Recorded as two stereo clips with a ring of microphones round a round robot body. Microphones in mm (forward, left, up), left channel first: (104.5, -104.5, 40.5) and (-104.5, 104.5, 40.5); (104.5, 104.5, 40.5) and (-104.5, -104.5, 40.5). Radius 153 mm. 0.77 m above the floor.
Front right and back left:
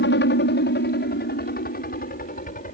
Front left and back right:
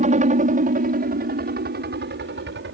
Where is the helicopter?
80° right; by 2.8 s 100° right.